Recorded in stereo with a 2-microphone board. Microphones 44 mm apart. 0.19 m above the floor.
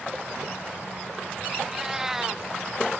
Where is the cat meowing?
10° right (ahead or behind).